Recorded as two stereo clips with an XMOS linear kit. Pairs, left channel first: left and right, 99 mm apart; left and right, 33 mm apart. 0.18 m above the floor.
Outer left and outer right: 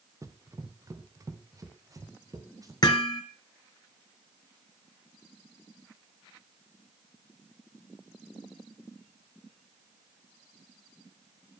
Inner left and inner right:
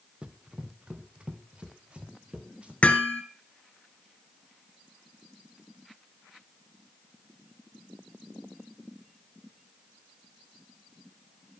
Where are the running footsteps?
35° right (ahead or behind), 1.7 m.